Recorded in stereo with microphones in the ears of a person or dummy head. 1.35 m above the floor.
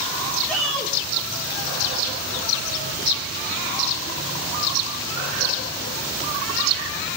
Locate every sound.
0.5 s a shout: 5° left (ahead or behind), 1.7 m